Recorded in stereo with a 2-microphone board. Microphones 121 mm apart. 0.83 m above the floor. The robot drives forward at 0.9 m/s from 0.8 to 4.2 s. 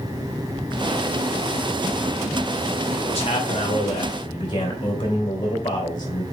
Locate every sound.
3.0 s a man speaking: 55° left (ahead or behind), 2.5 m; by 6.2 s 40° left (ahead or behind), 3 m